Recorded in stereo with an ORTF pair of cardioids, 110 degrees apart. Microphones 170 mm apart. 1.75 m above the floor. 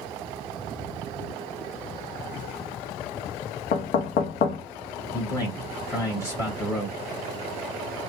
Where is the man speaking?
15° left, 2 m.